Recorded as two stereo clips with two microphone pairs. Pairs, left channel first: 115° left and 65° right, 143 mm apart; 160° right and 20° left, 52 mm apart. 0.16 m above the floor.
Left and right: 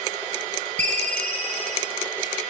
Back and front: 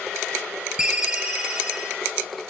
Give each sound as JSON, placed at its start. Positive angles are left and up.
{"t": 0.8, "sound": "a ringtone", "azimuth_deg": -50, "distance_m": 2.5}